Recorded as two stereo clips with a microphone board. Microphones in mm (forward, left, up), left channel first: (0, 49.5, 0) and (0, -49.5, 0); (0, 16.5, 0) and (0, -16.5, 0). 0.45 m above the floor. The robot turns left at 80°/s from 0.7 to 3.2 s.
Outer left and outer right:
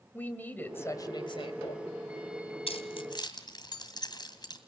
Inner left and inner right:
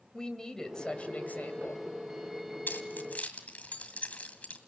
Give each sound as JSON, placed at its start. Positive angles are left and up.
{"t": 0.1, "sound": "a woman speaking", "azimuth_deg": 160, "distance_m": 2.0}
{"t": 2.7, "sound": "keys jangling", "side_deg": 75, "distance_m": 2.0}